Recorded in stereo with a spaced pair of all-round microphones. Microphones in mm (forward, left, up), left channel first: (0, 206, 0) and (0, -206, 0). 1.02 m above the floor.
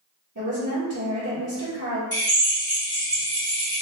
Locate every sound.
0.3 s a woman speaking: 45° right (ahead or behind), 1.3 m
2.1 s a drill: 55° left (ahead or behind), 1.9 m